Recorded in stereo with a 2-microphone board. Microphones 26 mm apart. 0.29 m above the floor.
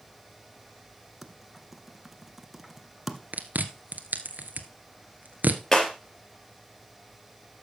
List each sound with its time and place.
1.2 s typing on a keyboard: 5° right (ahead or behind), 1.3 m
3.3 s chewing: 80° right, 1.2 m
5.7 s breaking glass: 15° left (ahead or behind), 3.5 m